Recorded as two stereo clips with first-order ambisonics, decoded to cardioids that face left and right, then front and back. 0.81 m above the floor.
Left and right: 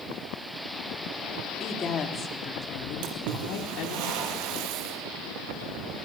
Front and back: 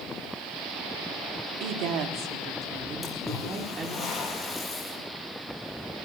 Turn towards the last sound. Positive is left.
turn(degrees=-85)